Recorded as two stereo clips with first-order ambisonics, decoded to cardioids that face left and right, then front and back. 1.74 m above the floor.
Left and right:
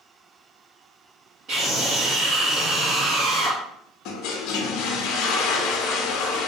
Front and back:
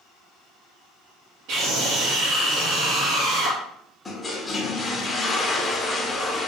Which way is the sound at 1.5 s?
150° right.